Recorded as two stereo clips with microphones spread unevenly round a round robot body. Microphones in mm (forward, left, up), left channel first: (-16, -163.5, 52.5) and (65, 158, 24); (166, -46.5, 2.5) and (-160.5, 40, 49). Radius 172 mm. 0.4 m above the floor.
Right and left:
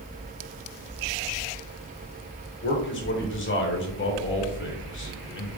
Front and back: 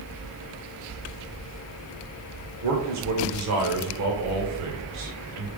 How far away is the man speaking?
About 1.2 m.